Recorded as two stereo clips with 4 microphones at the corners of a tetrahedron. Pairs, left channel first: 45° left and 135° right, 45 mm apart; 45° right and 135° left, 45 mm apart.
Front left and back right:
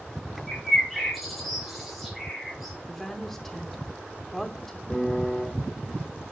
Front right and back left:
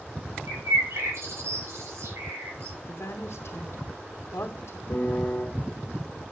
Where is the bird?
135° left, 6 m.